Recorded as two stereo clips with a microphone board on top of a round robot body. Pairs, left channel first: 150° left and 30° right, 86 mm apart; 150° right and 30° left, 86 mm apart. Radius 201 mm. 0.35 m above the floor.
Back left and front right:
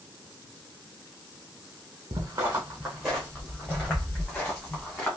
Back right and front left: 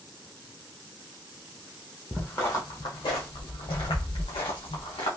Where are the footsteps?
70° right, 0.5 m; by 5.1 s 140° right, 2 m.